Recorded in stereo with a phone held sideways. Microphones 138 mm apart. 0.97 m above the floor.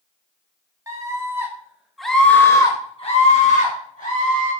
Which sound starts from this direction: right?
A scream, at 0.9 s.